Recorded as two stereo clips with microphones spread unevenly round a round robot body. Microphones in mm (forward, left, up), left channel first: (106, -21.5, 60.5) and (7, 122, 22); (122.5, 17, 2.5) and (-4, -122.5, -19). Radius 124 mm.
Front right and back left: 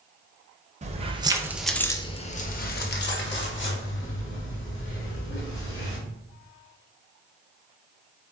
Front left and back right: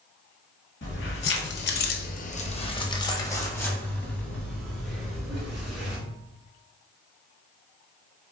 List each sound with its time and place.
0.8 s keys jangling: 90° left, 0.9 m; by 6.0 s 45° right, 3 m